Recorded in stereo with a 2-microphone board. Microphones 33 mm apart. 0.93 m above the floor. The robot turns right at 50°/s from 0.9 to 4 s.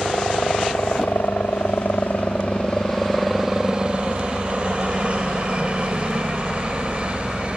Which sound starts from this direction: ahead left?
A helicopter, at 0.0 s.